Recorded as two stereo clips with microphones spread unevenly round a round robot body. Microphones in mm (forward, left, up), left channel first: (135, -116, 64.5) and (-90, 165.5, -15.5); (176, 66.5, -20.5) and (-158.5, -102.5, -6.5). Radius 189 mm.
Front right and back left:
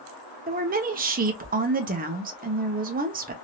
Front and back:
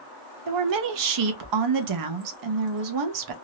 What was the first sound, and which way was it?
A woman speaking, straight behind.